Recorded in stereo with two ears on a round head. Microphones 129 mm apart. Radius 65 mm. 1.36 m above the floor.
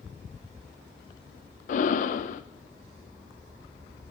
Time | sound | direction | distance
1.7 | breathing | 55° left (ahead or behind) | 0.6 m